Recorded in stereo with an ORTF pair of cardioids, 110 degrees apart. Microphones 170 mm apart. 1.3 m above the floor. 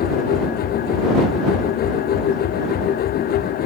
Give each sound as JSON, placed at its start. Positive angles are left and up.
{"t": 0.0, "sound": "a machine running", "azimuth_deg": 65}